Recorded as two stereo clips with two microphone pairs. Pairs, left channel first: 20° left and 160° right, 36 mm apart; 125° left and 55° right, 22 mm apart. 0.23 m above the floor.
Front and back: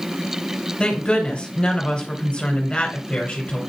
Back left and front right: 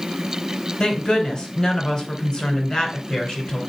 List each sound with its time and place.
0.8 s a woman speaking: 75° left, 2.5 m